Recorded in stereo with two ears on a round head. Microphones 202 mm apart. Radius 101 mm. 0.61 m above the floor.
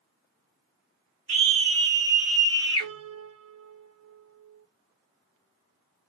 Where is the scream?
35° right (ahead or behind), 1.5 m; by 2.9 s 30° left (ahead or behind), 1.0 m.